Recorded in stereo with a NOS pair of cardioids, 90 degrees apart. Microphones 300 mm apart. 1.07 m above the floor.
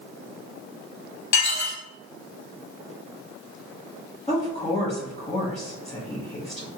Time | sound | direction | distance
1.3 | dishes clattering | 65° left | 1.1 m
4.3 | a woman speaking | 20° left | 1.1 m